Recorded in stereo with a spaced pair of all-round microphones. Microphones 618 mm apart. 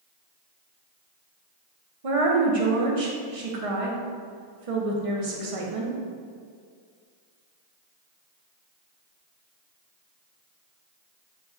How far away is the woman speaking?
About 0.8 m.